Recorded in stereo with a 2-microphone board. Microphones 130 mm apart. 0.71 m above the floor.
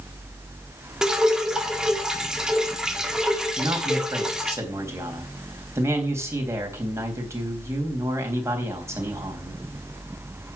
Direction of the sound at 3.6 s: 20° right (ahead or behind).